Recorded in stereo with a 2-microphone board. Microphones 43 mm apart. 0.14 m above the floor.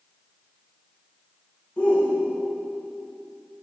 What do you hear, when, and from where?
1.8 s a shout: 25° left (ahead or behind), 10 m